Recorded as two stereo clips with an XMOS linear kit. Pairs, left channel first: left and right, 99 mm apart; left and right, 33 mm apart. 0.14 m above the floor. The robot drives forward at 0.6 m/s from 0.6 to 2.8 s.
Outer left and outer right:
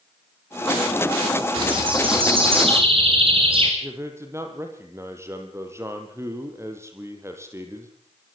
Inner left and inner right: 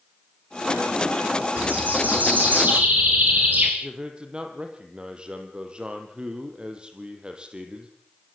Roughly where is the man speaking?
Right.